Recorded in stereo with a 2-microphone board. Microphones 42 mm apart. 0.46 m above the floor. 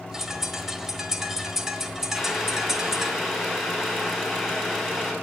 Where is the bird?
10° right (ahead or behind), 1.2 m.